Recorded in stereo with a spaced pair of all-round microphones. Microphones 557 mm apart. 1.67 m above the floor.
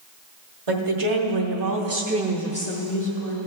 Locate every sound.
0.7 s a woman speaking: 70° right (ahead or behind), 1.3 m; by 3.4 s 45° left (ahead or behind), 1.1 m